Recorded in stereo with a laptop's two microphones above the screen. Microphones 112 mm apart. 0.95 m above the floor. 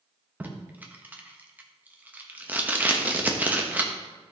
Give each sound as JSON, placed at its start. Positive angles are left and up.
{"t": 0.4, "sound": "tape being pulled", "side_deg": -15, "distance_m": 1.0}